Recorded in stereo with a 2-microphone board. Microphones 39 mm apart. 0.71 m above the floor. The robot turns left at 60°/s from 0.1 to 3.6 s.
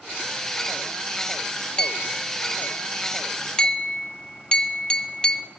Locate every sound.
1.8 s a clink: 20° left (ahead or behind), 0.5 m; by 5.5 s 25° left (ahead or behind), 0.5 m